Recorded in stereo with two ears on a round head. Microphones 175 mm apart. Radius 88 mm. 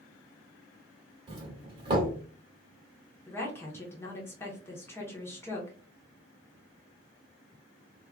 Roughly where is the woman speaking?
Centre.